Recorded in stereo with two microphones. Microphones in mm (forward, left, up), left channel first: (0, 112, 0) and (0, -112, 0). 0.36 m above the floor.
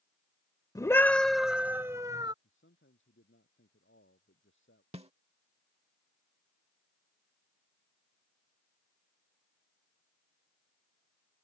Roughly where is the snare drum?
Right.